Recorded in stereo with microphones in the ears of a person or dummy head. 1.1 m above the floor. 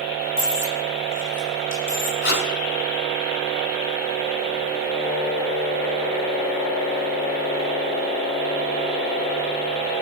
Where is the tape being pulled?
55° left (ahead or behind), 1.6 m.